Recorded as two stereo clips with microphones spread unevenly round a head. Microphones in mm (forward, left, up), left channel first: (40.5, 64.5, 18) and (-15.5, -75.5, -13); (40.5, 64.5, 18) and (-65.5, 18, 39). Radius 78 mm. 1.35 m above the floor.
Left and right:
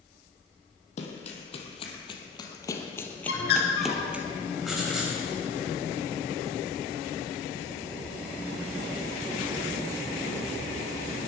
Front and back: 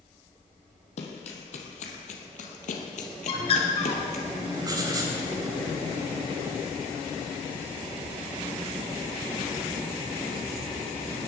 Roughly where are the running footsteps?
Ahead left.